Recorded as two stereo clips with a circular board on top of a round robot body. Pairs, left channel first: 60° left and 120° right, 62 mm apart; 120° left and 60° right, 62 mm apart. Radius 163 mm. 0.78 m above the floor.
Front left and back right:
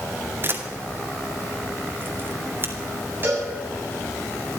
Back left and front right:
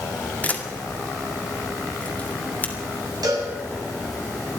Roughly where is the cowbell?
Ahead right.